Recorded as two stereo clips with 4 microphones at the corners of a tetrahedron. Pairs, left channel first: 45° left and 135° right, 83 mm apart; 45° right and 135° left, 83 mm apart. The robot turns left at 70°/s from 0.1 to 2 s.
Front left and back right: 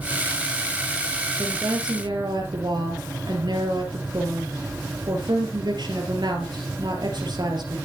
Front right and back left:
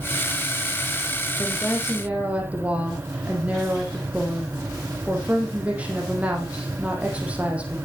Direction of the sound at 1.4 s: 110° right.